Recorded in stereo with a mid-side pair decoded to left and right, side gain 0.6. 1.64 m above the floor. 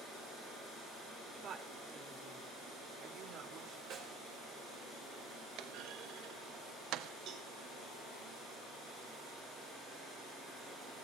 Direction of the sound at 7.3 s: 65° right.